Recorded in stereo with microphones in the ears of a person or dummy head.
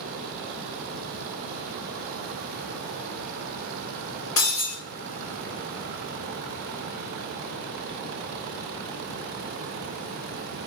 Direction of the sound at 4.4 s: 35° left (ahead or behind).